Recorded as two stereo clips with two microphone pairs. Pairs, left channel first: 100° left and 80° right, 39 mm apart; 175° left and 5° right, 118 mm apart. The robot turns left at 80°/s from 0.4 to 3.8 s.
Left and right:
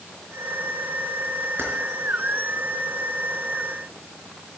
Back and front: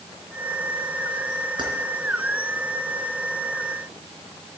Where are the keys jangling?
55° right, 4 m; by 1.7 s 65° right, 4 m.